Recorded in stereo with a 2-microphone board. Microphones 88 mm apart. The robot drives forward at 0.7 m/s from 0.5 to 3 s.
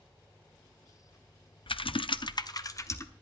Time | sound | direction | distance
1.7 | typing on a keyboard | 80° left | 0.6 m